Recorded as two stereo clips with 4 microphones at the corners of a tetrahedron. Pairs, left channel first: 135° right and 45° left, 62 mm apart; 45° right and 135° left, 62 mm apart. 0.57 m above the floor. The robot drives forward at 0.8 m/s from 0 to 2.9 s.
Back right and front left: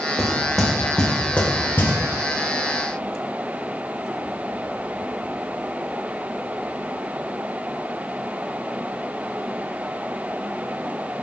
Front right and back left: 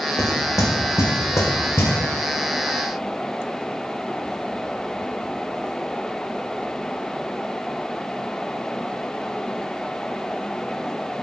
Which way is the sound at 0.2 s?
45° right.